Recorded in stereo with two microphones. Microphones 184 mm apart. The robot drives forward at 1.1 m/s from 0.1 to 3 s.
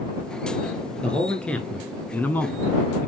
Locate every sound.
1.0 s a man speaking: 5° left (ahead or behind), 2 m; by 3.1 s 10° left (ahead or behind), 1.1 m